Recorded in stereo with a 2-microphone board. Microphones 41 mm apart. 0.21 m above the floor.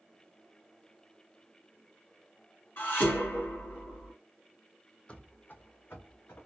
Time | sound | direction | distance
2.8 | dishes clattering | 60° left (ahead or behind) | 2.0 m
5.1 | running footsteps | 30° left (ahead or behind) | 0.5 m